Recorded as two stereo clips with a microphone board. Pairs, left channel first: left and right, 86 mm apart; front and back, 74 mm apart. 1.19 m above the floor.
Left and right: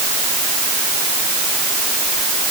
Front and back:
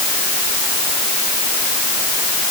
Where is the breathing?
I don't hear breathing.